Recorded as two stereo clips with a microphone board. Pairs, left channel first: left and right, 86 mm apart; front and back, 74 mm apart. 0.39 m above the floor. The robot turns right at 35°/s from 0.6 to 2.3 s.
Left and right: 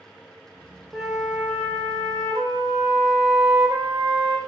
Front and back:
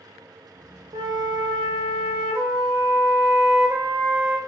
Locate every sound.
0.9 s a flute: straight behind, 0.6 m; by 4.4 s 130° right, 0.6 m